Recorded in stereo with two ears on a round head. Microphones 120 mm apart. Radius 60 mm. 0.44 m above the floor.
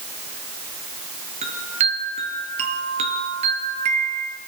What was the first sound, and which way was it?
A chime, 50° right (ahead or behind).